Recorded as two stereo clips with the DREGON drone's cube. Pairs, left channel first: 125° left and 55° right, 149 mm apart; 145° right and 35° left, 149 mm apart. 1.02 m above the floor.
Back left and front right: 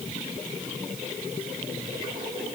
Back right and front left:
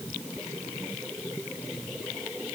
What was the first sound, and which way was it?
Only background noise.